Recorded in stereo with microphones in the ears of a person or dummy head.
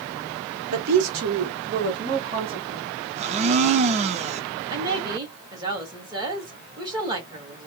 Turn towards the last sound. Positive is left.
turn(degrees=-20)  # may be behind; listen again after turning